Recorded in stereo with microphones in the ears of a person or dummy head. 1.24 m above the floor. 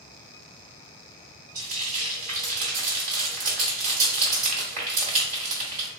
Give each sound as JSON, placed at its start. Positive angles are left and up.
{"t": 1.6, "sound": "frying", "side_deg": -40, "distance_m": 1.8}